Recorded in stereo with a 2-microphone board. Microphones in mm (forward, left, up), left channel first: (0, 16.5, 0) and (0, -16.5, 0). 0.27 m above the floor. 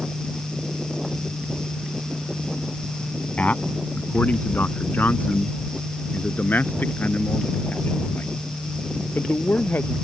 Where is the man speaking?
55° left (ahead or behind); by 9.9 s 75° left (ahead or behind).